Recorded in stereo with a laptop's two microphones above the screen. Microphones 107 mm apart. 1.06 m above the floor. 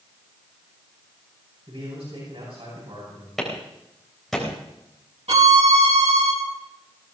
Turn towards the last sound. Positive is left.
turn(degrees=-80)